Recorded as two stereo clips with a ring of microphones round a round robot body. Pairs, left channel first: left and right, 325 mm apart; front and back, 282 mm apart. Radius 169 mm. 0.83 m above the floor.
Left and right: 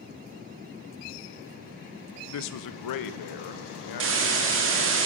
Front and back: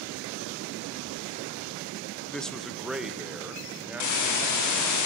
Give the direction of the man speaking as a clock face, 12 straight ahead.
9 o'clock.